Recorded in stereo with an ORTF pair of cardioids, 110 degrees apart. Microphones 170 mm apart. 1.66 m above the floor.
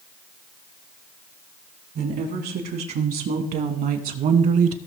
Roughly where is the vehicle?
No vehicle in this recording.